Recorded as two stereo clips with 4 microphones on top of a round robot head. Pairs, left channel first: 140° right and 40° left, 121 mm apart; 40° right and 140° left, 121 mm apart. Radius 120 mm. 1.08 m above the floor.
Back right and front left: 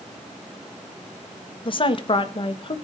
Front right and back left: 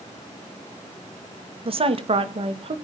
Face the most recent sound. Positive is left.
turn(degrees=180)